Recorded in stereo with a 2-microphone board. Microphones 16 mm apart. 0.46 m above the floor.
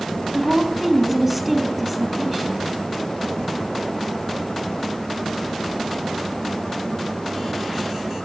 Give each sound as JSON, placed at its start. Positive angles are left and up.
{"t": 0.3, "sound": "a woman speaking", "side_deg": -15, "distance_m": 4.0}